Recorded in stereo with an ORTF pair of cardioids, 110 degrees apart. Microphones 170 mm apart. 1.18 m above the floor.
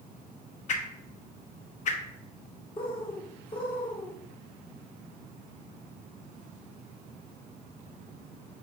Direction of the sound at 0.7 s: 45° left.